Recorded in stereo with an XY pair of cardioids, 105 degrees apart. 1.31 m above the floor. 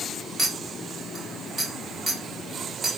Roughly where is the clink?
Ahead.